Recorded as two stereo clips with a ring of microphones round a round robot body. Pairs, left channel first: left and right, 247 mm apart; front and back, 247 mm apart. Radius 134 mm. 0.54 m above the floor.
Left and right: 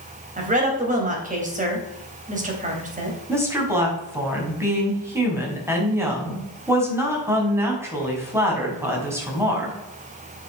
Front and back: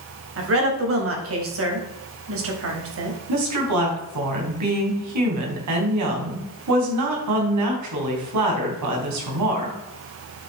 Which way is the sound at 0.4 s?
150° right.